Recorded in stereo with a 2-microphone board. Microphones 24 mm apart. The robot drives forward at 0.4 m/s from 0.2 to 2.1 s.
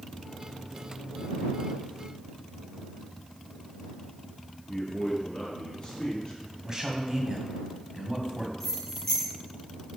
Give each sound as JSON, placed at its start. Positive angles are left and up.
{"t": 4.7, "sound": "a man speaking", "side_deg": 30, "distance_m": 4.0}
{"t": 6.6, "sound": "a man speaking", "side_deg": -20, "distance_m": 1.9}
{"t": 8.6, "sound": "keys jangling", "side_deg": 10, "distance_m": 4.0}